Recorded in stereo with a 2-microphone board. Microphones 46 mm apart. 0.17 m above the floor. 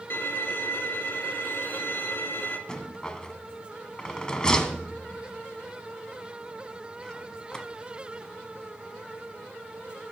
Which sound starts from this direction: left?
A violin, at 0.1 s.